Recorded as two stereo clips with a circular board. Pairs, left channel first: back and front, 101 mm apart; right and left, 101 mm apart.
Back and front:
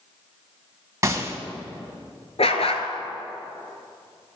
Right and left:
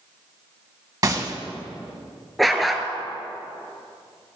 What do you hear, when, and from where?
1.0 s a gunshot: 50° left, 0.9 m
2.4 s a dog barking: straight behind, 0.9 m